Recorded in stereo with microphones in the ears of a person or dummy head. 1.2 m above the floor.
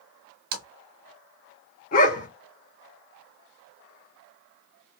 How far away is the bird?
No bird in this recording.